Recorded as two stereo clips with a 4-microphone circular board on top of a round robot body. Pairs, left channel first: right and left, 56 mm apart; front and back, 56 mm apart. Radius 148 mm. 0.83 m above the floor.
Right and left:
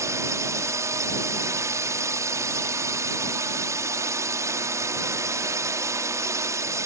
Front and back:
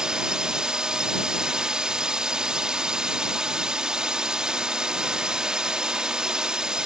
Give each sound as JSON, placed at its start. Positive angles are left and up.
{"t": 0.0, "sound": "a drone", "azimuth_deg": 105}